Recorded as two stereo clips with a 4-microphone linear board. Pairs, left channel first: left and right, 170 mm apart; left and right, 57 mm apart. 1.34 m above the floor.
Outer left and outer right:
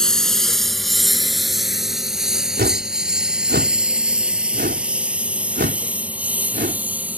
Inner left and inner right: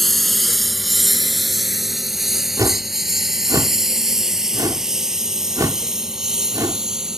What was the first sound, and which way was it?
A lawn mower, 5° left (ahead or behind).